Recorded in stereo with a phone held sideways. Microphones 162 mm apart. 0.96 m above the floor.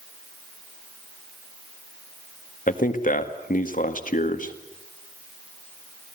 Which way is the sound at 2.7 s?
60° left (ahead or behind).